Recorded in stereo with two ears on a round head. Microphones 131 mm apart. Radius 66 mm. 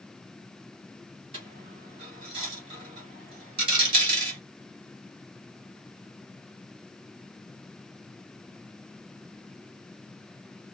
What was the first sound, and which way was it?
A dropped coin, 35° right (ahead or behind).